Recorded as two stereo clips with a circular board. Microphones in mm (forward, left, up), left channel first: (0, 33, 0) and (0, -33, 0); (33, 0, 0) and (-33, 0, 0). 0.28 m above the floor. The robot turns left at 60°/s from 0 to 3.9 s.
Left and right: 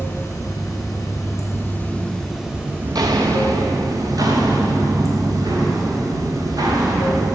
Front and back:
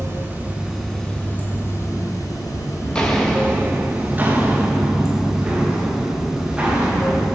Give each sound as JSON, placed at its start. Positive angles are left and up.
{"t": 0.0, "sound": "running water", "azimuth_deg": 140, "distance_m": 2.5}
{"t": 2.8, "sound": "footsteps", "azimuth_deg": -70, "distance_m": 1.3}